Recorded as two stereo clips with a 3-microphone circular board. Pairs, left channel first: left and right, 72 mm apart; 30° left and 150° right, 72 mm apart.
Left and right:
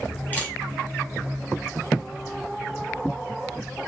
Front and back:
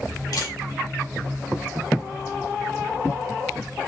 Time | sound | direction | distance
0.3 | a camera shutter | 25° left | 2 m